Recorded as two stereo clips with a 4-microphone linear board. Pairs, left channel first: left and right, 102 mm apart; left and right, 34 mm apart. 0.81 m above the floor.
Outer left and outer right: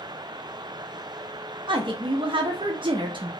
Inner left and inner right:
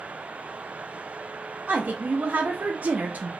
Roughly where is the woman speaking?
Right.